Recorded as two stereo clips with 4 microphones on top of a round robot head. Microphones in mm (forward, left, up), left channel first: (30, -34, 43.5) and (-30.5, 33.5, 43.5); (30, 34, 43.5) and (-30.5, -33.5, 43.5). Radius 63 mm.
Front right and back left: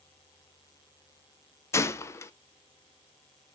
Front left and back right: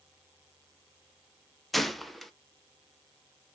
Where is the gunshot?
40° right, 0.6 m.